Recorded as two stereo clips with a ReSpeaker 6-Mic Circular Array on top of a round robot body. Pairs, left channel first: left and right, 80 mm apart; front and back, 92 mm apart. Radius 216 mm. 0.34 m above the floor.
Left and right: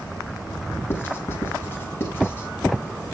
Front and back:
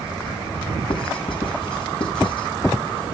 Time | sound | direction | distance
0.9 | writing | 30° left | 6 m